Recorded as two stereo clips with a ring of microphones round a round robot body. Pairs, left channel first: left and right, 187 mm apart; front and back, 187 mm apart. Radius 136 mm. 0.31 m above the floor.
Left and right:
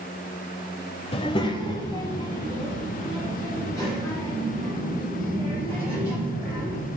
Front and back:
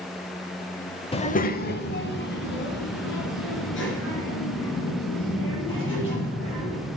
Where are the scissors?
I don't hear scissors.